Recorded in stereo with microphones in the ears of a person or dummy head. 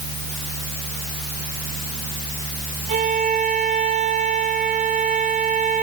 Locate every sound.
0.0 s a fan: 30° left (ahead or behind), 2.5 m
2.9 s a violin: 35° right (ahead or behind), 1.1 m